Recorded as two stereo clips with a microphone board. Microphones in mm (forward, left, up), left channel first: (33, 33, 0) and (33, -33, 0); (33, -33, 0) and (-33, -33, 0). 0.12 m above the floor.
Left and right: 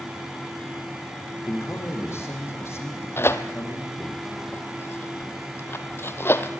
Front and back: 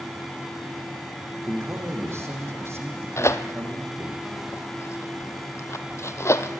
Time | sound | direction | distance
1.5 | a man speaking | 135° left | 6.5 m
3.2 | tearing paper | 40° left | 1.1 m